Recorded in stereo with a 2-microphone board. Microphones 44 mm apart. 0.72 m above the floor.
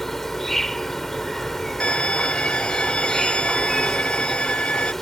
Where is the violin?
25° left (ahead or behind).